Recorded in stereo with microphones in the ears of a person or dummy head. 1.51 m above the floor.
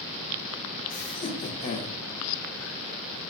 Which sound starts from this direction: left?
Laughter, at 0.9 s.